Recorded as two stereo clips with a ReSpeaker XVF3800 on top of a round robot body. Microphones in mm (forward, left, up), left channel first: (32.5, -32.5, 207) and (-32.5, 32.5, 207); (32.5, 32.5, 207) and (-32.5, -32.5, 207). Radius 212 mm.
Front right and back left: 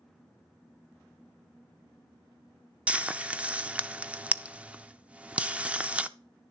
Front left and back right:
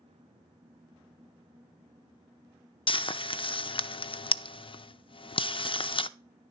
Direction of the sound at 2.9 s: 60° left.